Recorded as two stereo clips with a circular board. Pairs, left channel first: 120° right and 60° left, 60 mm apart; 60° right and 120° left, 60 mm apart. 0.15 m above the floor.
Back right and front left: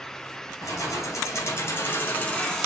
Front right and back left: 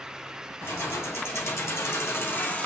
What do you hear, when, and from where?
0.6 s keys jangling: 95° right, 2 m; by 2.7 s 40° right, 0.9 m